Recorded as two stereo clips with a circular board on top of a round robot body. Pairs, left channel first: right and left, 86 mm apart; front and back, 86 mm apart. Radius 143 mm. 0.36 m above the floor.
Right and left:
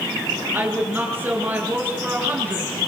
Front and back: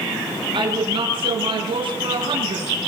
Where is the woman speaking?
160° left, 8 m.